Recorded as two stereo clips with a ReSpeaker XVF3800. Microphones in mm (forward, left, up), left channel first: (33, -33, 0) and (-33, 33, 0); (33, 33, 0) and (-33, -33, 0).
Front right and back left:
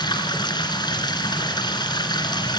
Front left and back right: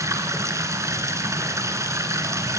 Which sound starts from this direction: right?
Running water, at 0.0 s.